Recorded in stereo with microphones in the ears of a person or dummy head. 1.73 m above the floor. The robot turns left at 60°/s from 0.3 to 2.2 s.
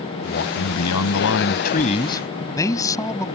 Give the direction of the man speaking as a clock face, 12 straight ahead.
8 o'clock.